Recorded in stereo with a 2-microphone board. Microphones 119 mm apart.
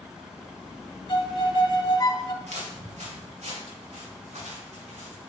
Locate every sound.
1.1 s a violin: 35° left (ahead or behind), 0.7 m
2.4 s footsteps: 70° right (ahead or behind), 3 m; by 5.3 s 80° right, 5.5 m